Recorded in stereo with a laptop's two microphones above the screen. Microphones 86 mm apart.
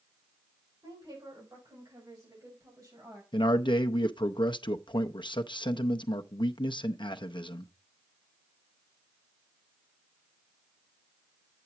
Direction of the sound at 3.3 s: 70° left (ahead or behind).